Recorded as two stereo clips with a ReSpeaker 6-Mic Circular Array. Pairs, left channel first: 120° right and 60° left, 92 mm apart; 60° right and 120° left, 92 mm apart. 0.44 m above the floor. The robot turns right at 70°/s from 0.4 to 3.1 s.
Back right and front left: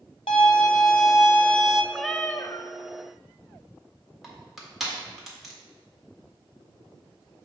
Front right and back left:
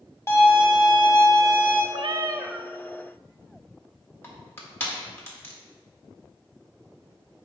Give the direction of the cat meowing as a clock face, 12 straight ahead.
7 o'clock.